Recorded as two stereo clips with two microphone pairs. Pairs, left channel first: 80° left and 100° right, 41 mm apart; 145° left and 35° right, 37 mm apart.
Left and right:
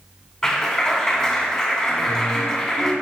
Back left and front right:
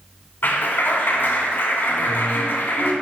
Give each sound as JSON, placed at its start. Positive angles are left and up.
{"t": 0.4, "sound": "a clap", "azimuth_deg": 150, "distance_m": 2.5}